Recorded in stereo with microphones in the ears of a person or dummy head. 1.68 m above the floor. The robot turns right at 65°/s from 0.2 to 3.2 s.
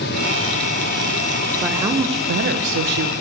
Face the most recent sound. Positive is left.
turn(degrees=-75)